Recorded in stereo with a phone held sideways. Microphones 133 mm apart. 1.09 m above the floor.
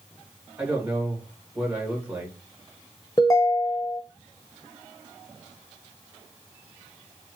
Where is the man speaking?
10° right (ahead or behind), 1.8 m.